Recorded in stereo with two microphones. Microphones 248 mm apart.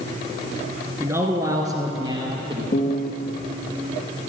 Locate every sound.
1.0 s a man speaking: 10° right (ahead or behind), 1.6 m; by 2.6 s 20° right (ahead or behind), 2.5 m
2.7 s a piano: 35° left (ahead or behind), 0.9 m